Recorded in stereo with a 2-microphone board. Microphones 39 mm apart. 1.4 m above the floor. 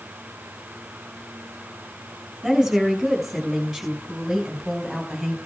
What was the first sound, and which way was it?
A woman speaking, 5° right (ahead or behind).